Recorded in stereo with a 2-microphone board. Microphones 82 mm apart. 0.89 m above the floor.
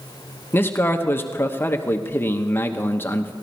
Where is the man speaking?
25° left (ahead or behind), 1.0 m.